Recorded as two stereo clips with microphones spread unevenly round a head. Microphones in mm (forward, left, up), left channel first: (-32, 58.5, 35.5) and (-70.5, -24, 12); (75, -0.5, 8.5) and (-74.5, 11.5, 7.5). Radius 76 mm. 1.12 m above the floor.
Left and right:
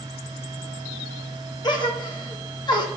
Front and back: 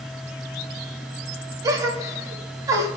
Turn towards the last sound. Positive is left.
turn(degrees=110)